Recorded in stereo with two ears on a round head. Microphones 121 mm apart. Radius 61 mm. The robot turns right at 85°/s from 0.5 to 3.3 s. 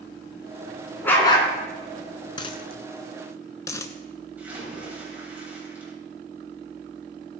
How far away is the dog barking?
About 2.5 m.